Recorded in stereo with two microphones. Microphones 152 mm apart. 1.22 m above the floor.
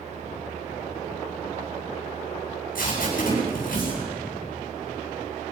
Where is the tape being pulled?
65° left (ahead or behind), 9 m.